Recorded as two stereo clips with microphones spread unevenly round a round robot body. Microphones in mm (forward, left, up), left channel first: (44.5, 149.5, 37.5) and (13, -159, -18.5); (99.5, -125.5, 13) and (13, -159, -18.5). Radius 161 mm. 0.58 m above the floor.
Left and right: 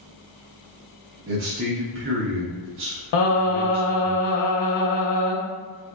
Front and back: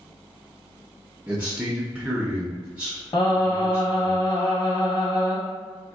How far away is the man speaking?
About 0.8 m.